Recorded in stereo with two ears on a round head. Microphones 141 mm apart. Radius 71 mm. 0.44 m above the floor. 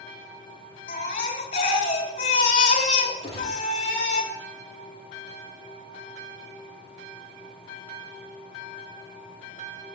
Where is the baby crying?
55° left (ahead or behind), 2 m.